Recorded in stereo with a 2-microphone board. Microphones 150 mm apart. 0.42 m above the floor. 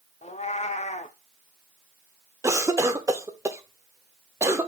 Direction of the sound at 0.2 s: 45° left (ahead or behind).